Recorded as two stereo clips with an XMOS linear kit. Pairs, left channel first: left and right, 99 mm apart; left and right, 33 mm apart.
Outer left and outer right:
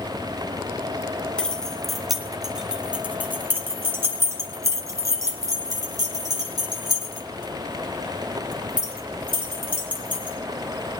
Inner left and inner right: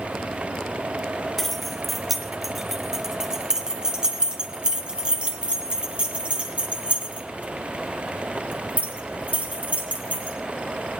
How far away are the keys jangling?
About 2 m.